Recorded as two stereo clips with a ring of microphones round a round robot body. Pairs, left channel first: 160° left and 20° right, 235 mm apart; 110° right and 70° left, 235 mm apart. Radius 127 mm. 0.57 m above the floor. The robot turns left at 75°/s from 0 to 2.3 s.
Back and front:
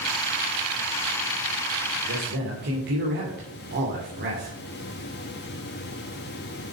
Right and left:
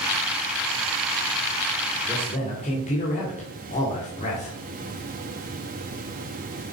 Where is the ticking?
No ticking in this recording.